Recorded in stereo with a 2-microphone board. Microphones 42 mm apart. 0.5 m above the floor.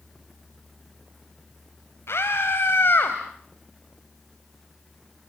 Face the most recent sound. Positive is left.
turn(degrees=50)  # may be behind; listen again after turning